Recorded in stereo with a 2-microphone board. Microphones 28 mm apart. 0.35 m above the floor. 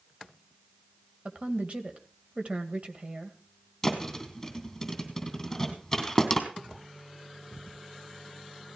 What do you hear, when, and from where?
1.2 s a woman speaking: 40° right (ahead or behind), 1.8 m
3.8 s a thud: 10° left (ahead or behind), 2.5 m